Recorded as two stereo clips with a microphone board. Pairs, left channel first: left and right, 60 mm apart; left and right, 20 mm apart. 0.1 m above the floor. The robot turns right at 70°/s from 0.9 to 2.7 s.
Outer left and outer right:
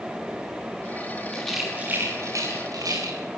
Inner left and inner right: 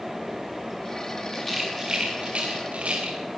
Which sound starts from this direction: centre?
A rattle, at 1.3 s.